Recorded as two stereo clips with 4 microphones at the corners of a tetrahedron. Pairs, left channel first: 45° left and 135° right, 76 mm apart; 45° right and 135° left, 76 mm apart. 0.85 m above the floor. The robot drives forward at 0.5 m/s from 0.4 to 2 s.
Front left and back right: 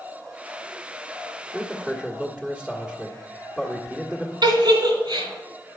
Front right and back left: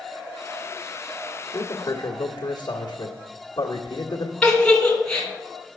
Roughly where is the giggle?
Behind right.